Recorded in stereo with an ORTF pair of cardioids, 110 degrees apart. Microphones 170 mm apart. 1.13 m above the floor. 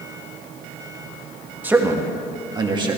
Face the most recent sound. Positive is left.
turn(degrees=-30)